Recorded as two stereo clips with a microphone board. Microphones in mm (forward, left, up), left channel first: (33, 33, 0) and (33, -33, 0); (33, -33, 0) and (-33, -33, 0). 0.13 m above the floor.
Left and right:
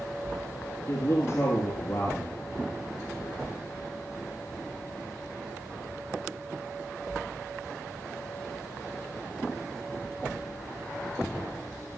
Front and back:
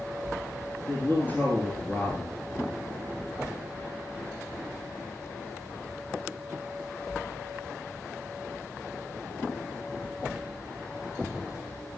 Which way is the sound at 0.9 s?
55° left.